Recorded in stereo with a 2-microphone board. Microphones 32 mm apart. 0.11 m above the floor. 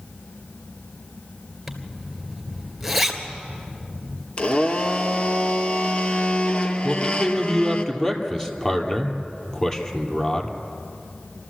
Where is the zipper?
Centre (ahead or behind), 2 m.